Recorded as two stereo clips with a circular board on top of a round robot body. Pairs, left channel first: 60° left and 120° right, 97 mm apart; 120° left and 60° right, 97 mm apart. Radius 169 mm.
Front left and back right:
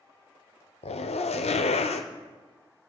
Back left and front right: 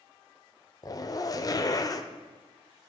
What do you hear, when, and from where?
0.8 s a zipper: 65° left, 0.6 m